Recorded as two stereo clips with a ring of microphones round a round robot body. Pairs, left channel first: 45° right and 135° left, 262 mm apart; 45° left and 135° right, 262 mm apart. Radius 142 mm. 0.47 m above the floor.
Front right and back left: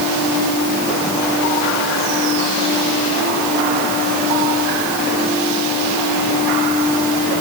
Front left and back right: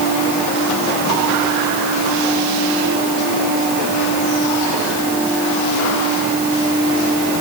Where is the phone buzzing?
No phone buzzing in this recording.